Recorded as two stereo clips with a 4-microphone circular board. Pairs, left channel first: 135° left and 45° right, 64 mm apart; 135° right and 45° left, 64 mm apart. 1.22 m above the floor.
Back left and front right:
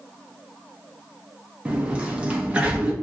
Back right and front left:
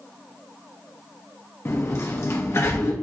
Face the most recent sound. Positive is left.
turn(degrees=-110)